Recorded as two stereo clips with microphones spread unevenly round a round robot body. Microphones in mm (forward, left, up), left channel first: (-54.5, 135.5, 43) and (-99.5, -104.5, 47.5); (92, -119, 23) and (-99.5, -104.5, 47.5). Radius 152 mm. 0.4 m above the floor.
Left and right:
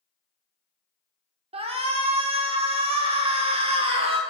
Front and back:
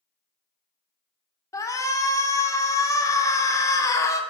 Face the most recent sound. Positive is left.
turn(degrees=-50)